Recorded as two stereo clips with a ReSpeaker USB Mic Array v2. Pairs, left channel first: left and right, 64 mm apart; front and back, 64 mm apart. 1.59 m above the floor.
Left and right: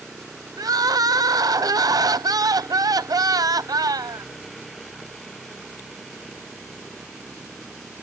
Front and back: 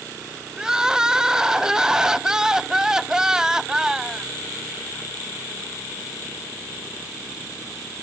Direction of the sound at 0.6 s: 100° right.